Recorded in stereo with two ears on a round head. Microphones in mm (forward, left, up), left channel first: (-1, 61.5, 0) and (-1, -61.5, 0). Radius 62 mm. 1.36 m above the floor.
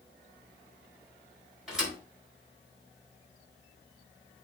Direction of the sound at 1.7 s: 5° right (ahead or behind).